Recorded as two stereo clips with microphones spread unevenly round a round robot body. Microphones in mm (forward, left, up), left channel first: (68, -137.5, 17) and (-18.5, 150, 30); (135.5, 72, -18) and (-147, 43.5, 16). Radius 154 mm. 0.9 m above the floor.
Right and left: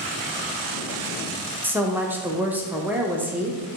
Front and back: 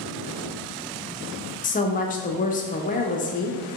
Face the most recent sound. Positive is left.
turn(degrees=25)